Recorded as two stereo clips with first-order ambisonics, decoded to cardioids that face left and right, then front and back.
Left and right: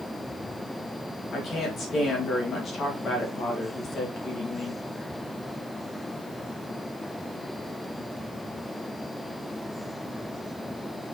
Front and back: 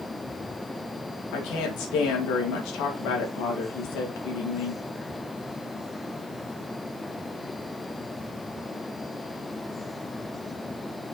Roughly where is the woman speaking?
Ahead left.